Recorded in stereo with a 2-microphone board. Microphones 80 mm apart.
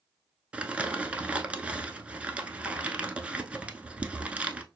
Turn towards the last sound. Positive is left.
turn(degrees=-15)  # may be behind; listen again after turning